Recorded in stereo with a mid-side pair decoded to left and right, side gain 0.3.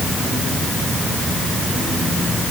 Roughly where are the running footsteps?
I don't hear running footsteps.